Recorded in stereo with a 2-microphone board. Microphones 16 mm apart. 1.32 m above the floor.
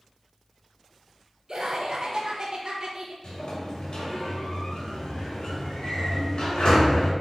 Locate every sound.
1.5 s laughter: 40° right (ahead or behind), 1.5 m
3.2 s a sliding door: 50° left (ahead or behind), 2.5 m